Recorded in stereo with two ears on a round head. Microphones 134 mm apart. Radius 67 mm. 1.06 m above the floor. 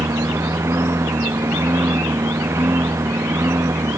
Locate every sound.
0.0 s a lawn mower: 15° right (ahead or behind)